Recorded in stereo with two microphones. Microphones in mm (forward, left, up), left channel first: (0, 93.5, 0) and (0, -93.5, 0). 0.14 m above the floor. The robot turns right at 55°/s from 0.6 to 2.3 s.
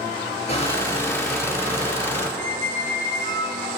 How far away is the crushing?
About 2.5 m.